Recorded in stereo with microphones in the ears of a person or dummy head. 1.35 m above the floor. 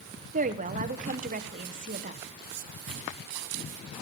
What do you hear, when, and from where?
0.3 s a woman speaking: 35° right (ahead or behind), 1.1 m
2.9 s a drawer: 60° right (ahead or behind), 5 m